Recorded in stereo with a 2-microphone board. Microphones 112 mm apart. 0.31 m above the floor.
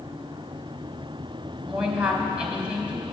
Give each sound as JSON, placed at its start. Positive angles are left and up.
{"t": 1.6, "sound": "a woman speaking", "side_deg": -10, "distance_m": 1.6}